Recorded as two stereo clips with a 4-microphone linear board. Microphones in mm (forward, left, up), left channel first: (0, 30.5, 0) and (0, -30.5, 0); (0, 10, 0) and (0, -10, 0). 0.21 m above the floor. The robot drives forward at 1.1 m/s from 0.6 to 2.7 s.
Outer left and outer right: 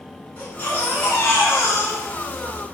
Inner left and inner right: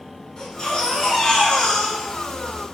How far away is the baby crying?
About 1.8 m.